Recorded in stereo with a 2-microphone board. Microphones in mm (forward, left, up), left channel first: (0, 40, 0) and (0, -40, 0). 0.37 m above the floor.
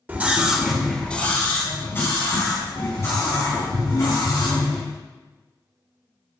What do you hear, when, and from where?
0.1 s a scream: 20° right (ahead or behind), 1.0 m; by 4.8 s 40° left (ahead or behind), 3.5 m